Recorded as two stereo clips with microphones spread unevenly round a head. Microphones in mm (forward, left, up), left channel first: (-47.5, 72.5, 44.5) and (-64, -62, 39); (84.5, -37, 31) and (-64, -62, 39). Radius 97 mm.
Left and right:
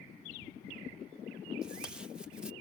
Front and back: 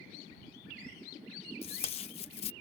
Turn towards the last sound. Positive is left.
turn(degrees=-10)